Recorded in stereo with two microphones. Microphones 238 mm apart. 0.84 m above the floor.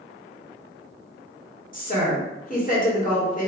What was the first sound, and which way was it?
A woman speaking, 35° left (ahead or behind).